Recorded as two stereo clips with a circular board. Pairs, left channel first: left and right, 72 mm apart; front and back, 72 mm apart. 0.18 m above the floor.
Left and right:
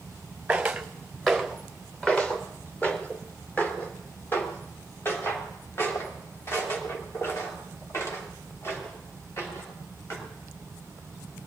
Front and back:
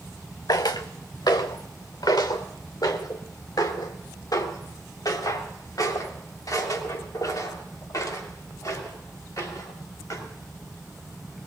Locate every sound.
0.5 s footsteps: 15° right, 1.2 m; by 10.2 s 40° left, 5.5 m